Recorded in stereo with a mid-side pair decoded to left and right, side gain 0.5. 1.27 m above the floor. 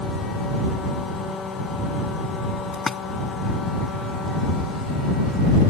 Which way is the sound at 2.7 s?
20° left.